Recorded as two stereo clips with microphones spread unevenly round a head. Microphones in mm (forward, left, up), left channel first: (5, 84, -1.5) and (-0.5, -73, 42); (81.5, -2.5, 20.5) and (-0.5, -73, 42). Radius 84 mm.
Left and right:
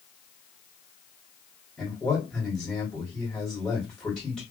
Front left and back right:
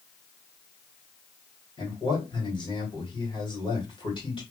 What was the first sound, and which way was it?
A man speaking, 10° left.